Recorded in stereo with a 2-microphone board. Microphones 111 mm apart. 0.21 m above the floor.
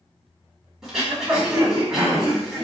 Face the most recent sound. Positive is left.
turn(degrees=-5)  # may be behind; listen again after turning